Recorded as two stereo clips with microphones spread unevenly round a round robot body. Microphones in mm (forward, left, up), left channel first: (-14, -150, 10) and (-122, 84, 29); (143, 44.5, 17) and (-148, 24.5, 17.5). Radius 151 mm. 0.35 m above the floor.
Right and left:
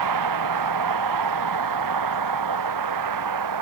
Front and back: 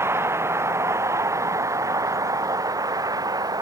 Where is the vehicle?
100° left; by 3.6 s 105° left.